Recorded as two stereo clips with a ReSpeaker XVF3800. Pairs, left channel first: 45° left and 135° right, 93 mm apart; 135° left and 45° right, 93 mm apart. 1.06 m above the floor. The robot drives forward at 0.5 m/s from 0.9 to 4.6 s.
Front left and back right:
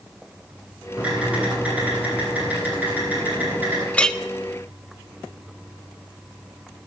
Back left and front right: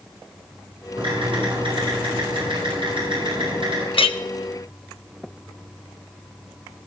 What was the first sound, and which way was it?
Typing on a keyboard, 60° right.